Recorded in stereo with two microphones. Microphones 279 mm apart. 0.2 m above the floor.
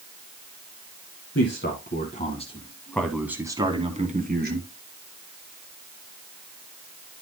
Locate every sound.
1.4 s a man speaking: 45° left (ahead or behind), 1.9 m; by 4.7 s 40° right (ahead or behind), 2.0 m